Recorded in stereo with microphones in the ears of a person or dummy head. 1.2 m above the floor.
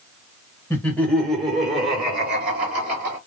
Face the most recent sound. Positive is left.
turn(degrees=-55)  # may be behind; listen again after turning